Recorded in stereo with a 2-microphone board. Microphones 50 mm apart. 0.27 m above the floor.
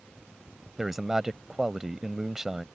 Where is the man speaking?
10° right (ahead or behind).